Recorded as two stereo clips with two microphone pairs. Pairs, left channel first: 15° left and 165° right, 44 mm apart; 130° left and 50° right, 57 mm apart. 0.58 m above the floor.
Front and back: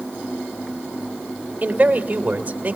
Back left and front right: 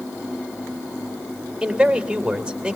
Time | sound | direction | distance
1.6 | a man speaking | 120° right | 2.5 m